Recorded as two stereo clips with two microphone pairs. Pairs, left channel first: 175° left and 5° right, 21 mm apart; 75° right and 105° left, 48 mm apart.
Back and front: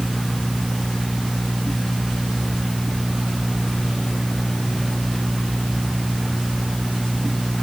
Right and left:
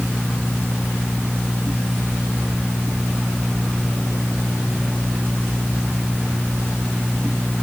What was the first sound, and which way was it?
Only background noise.